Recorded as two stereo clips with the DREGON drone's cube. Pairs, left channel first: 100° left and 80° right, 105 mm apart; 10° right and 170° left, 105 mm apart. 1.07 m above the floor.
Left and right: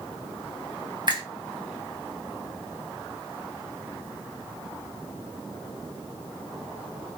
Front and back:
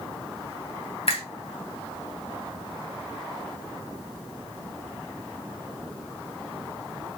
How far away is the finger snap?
About 1.2 m.